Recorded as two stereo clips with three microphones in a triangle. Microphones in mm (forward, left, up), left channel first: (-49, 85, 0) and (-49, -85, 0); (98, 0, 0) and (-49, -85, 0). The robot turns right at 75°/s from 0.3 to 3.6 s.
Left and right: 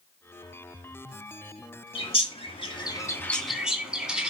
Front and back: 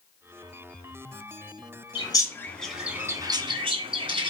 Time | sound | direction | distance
1.9 | a bird | 65° left | 1.7 m